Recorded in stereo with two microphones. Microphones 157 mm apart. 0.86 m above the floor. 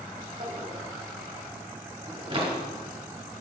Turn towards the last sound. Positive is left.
turn(degrees=-35)  # may be behind; listen again after turning